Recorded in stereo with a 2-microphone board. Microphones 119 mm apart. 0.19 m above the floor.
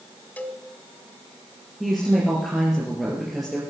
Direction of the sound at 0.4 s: 15° left (ahead or behind).